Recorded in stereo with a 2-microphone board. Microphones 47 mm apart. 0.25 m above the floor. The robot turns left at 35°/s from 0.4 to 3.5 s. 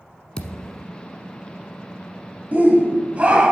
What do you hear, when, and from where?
0.4 s a thud: 25° left (ahead or behind), 1.0 m; by 0.9 s 5° left (ahead or behind), 1.0 m
2.5 s a shout: 100° right, 1.2 m; by 3.5 s 135° right, 1.2 m